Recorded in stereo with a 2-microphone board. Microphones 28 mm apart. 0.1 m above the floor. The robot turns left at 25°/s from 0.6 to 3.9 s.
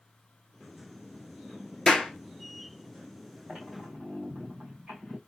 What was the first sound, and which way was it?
A clap, 15° left (ahead or behind).